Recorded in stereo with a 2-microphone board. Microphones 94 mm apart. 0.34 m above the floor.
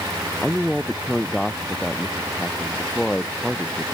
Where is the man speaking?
Centre (ahead or behind); by 3.9 s 5° left (ahead or behind).